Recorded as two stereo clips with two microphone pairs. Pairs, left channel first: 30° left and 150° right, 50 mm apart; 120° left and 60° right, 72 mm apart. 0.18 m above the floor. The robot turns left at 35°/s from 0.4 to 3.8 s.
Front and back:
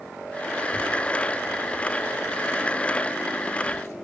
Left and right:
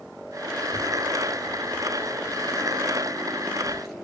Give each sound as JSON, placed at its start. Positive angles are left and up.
{"t": 0.6, "sound": "a child speaking", "azimuth_deg": 145, "distance_m": 1.9}